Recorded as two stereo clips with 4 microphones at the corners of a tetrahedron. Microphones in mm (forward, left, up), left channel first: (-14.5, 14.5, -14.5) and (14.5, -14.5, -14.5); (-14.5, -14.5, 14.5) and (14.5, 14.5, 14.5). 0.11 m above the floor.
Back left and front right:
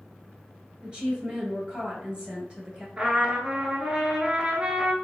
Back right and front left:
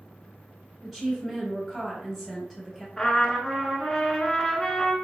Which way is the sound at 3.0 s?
70° right.